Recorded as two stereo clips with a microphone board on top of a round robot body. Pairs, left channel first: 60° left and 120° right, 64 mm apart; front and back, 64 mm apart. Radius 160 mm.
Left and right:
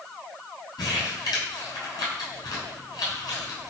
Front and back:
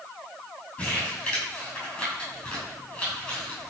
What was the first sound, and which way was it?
Crumpling, 75° left.